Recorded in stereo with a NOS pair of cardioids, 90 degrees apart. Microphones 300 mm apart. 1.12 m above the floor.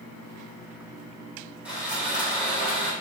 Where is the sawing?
5° right, 1.9 m.